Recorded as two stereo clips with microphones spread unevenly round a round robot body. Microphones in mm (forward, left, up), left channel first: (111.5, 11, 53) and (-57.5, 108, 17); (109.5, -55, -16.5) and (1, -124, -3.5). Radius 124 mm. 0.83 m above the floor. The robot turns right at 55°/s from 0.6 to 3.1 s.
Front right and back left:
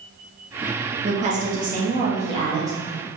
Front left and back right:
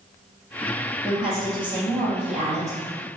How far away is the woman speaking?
About 1.4 m.